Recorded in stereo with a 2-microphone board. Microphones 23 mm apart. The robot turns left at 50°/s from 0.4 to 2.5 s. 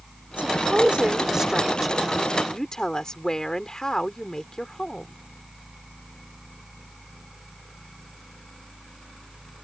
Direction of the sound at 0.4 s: 100° right.